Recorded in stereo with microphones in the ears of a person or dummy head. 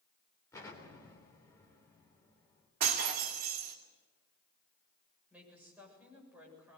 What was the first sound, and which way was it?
An explosion, 15° left (ahead or behind).